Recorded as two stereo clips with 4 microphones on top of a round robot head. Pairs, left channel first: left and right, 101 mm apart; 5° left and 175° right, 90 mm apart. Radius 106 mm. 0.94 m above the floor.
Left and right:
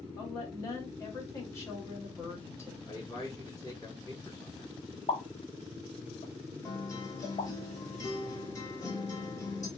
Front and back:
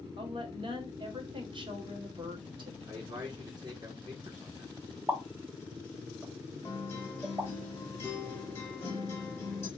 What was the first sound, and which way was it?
A woman speaking, 155° left.